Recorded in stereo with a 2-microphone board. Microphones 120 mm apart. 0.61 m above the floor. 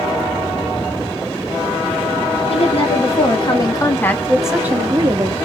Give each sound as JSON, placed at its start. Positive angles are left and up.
{"t": 2.5, "sound": "a woman speaking", "side_deg": 60, "distance_m": 2.0}